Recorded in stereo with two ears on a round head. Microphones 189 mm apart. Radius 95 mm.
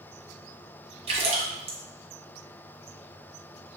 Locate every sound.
1.1 s a splash: 30° right (ahead or behind), 0.8 m